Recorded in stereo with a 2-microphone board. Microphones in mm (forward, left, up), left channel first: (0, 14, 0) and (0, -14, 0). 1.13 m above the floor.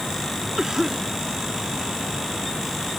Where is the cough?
20° right (ahead or behind).